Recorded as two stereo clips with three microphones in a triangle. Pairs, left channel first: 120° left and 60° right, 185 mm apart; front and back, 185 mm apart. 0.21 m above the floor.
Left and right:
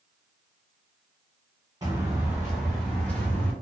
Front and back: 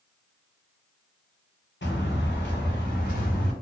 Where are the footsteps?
10° left, 1.4 m; by 3.5 s 40° left, 1.8 m.